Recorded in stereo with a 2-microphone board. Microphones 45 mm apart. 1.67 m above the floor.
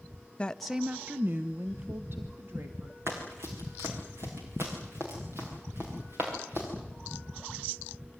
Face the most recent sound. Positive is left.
turn(degrees=-60)  # may be behind; listen again after turning